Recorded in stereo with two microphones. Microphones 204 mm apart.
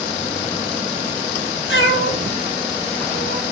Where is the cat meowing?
80° left, 1.2 m; by 3.4 s 50° left (ahead or behind), 1.7 m.